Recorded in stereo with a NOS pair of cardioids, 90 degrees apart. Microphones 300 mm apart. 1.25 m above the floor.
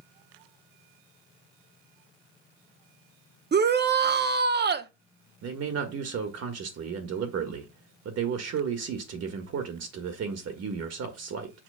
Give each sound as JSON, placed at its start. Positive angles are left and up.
{"t": 3.5, "sound": "a shout", "azimuth_deg": -35, "distance_m": 1.0}
{"t": 5.4, "sound": "a man speaking", "azimuth_deg": -60, "distance_m": 1.6}